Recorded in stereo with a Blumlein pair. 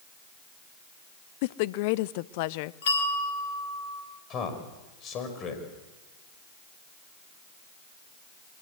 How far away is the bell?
About 3.5 m.